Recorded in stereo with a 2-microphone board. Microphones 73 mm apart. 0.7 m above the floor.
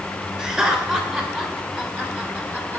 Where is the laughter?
15° right (ahead or behind), 3 m; by 2.8 s 25° right (ahead or behind), 1.9 m.